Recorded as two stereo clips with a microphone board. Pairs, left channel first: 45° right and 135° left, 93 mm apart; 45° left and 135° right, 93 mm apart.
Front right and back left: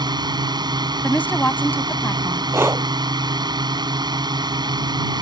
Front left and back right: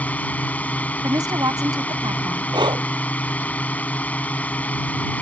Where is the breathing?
165° right.